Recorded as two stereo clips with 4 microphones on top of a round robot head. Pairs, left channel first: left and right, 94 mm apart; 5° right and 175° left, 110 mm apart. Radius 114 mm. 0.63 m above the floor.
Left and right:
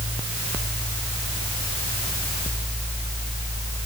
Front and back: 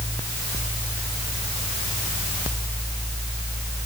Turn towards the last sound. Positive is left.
No sound to turn to.